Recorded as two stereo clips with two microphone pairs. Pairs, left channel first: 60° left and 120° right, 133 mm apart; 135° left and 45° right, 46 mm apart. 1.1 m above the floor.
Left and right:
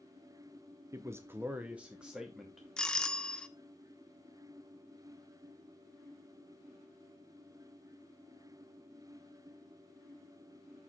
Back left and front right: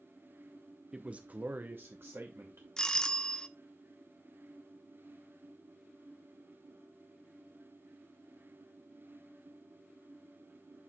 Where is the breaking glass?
I don't hear breaking glass.